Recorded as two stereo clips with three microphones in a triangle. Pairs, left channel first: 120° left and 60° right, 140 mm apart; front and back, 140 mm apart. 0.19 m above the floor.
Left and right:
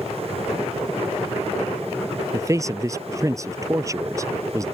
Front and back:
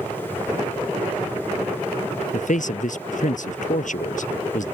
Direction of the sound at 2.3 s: 5° left.